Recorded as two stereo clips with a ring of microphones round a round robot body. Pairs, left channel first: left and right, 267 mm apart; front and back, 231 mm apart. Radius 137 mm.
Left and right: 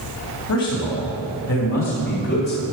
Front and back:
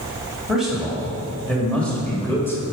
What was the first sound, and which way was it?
A man speaking, 95° left.